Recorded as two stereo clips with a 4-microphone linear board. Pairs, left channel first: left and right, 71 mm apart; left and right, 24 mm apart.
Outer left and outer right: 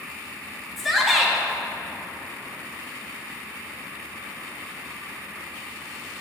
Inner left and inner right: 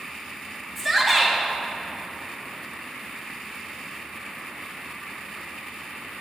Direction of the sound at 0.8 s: Centre (ahead or behind).